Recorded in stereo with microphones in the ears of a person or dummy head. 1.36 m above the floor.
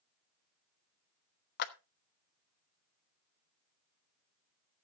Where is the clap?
55° left (ahead or behind), 1.2 m.